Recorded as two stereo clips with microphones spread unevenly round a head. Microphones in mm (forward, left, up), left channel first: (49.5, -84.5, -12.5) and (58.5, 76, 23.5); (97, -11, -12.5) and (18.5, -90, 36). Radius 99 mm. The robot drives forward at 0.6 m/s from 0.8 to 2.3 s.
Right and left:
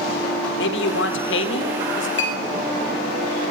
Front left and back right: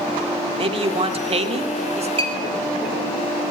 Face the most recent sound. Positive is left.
turn(degrees=-105)